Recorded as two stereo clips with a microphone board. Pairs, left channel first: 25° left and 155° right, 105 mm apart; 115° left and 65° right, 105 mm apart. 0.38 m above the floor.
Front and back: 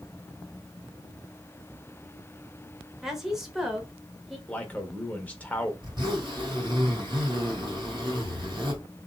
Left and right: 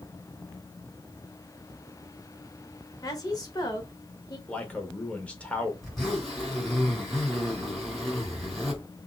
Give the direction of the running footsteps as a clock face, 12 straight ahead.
No running footsteps in this recording.